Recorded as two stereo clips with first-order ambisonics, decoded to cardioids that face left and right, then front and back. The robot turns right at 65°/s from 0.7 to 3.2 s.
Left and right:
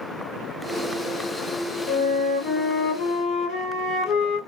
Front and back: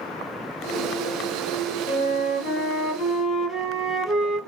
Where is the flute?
Straight ahead, 2 m; by 4.4 s 85° left, 2 m.